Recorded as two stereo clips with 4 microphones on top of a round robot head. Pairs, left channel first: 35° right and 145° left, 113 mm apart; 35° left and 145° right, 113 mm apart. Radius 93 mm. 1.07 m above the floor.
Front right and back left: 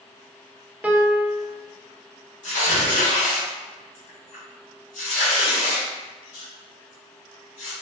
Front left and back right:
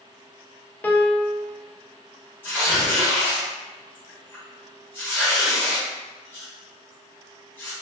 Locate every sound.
0.8 s a piano: 85° left, 0.6 m
2.4 s tearing paper: 35° right, 1.5 m